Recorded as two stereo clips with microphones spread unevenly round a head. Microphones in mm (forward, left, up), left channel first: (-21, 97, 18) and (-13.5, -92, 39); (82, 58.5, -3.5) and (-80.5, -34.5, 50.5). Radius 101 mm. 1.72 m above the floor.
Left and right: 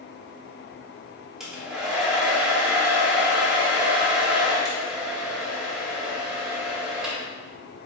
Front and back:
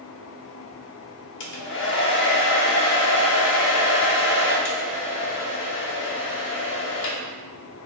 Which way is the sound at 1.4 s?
Straight ahead.